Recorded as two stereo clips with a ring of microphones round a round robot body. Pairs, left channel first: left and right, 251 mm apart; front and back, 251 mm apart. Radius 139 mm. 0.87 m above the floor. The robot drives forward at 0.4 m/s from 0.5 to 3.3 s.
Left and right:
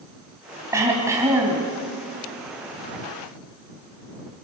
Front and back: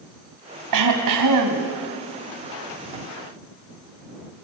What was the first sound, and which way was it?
Throat clearing, 170° right.